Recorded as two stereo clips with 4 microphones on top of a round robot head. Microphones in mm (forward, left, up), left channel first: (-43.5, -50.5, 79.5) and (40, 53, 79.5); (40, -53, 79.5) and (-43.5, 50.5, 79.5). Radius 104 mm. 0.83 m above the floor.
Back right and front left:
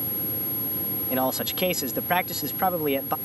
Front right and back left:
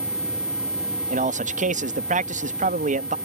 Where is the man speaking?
135° left.